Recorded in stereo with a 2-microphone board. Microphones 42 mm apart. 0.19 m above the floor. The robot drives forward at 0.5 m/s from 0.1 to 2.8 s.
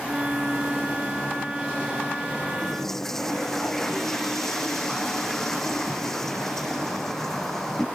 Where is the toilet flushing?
10° left (ahead or behind).